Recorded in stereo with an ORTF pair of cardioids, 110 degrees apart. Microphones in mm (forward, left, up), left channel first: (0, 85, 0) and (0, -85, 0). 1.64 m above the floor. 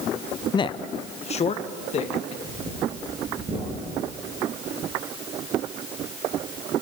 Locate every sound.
0.5 s a man speaking: 25° left, 0.5 m; by 2.3 s 40° left, 2.5 m
2.4 s breathing: 30° right, 8 m